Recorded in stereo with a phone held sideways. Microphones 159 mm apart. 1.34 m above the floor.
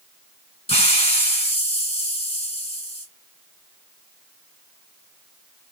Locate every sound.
0.7 s a hiss: 40° left (ahead or behind), 2.5 m